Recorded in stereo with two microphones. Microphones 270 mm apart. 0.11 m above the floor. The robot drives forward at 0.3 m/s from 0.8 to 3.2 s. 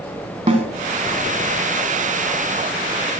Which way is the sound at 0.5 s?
30° right (ahead or behind).